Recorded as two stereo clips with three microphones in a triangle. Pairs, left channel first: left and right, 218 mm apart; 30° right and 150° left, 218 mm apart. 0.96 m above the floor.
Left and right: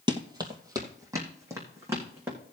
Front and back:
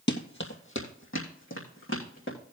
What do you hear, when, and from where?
0.1 s running footsteps: 25° right, 1.6 m; by 2.4 s 10° right, 4.5 m